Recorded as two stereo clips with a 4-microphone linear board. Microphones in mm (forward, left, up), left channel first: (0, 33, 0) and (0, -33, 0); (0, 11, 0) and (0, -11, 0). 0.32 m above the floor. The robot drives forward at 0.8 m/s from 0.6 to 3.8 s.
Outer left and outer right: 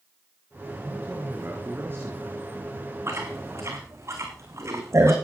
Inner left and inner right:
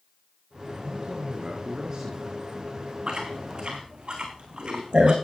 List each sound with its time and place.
0.8 s a man speaking: 30° right (ahead or behind), 5.5 m; by 2.4 s 40° right (ahead or behind), 4.5 m
3.1 s chewing: 40° right (ahead or behind), 5 m; by 5.2 s 45° right (ahead or behind), 4.5 m